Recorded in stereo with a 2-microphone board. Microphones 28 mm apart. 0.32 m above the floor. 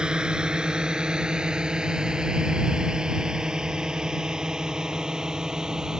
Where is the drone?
30° right (ahead or behind); by 6.0 s 25° right (ahead or behind).